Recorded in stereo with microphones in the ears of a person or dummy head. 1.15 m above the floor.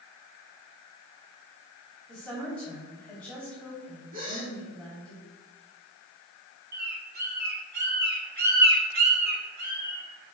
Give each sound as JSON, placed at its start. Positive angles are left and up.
{"t": 2.1, "sound": "a woman speaking", "side_deg": 0, "distance_m": 3.0}
{"t": 4.1, "sound": "a gasp", "side_deg": -50, "distance_m": 3.0}
{"t": 6.7, "sound": "a bird", "side_deg": -60, "distance_m": 2.0}